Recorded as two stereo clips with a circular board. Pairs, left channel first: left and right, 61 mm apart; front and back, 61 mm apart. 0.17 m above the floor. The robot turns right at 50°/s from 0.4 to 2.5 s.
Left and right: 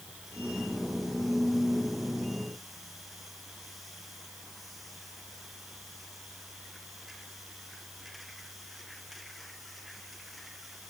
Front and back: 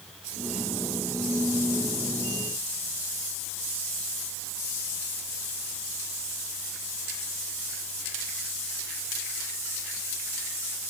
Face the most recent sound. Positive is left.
No sound to turn to.